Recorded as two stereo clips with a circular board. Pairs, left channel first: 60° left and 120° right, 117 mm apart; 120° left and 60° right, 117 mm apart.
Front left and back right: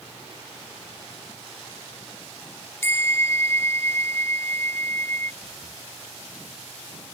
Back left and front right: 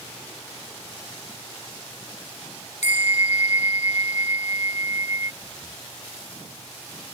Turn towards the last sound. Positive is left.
turn(degrees=-175)